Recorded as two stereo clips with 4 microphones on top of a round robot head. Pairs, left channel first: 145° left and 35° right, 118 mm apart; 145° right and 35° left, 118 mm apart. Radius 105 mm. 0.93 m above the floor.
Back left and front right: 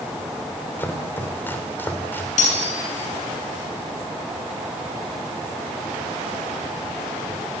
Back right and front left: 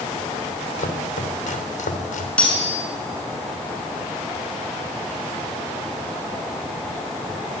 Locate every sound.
0.8 s chopping: 145° right, 3.5 m
2.4 s cutlery clinking: 135° left, 7.5 m